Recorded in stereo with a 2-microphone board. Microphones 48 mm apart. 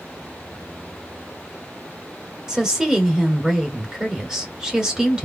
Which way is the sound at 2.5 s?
15° right (ahead or behind).